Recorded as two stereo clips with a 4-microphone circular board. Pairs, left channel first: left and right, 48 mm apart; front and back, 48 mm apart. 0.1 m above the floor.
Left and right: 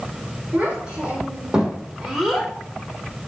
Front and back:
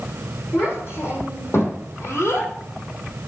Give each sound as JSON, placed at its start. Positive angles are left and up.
{"t": 0.5, "sound": "a child speaking", "azimuth_deg": -30, "distance_m": 3.5}